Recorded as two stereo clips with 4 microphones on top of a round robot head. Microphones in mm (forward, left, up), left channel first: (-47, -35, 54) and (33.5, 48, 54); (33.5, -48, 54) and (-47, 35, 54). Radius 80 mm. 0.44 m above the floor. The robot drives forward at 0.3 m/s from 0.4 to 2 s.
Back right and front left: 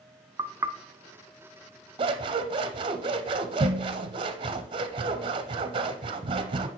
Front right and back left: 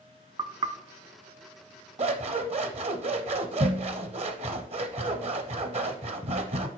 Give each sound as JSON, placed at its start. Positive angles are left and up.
{"t": 0.4, "sound": "knocking", "azimuth_deg": 90, "distance_m": 0.6}
{"t": 2.0, "sound": "scissors", "azimuth_deg": 95, "distance_m": 0.6}